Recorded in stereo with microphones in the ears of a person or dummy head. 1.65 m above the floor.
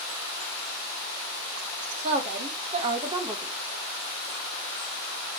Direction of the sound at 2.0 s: 50° right (ahead or behind).